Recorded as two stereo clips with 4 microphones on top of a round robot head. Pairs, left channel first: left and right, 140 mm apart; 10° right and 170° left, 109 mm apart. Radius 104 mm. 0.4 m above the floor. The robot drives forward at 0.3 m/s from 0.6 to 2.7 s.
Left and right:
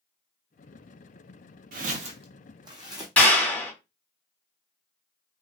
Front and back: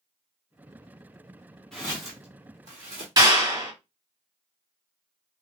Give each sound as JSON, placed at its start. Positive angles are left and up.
{"t": 1.7, "sound": "footsteps", "azimuth_deg": -95, "distance_m": 0.6}
{"t": 3.2, "sound": "a clap", "azimuth_deg": 165, "distance_m": 1.4}